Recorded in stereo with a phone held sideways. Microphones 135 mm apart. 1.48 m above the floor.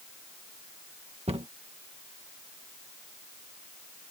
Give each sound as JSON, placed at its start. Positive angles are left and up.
{"t": 1.3, "sound": "a cupboard door", "side_deg": -50}